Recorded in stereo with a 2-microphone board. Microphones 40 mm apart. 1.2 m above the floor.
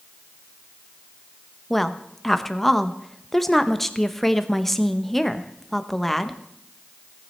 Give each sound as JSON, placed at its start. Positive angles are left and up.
{"t": 1.7, "sound": "a woman speaking", "side_deg": 5, "distance_m": 0.8}